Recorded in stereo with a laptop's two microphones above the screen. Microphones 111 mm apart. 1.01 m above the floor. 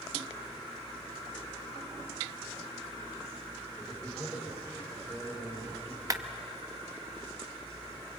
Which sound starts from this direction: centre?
A man speaking, at 3.8 s.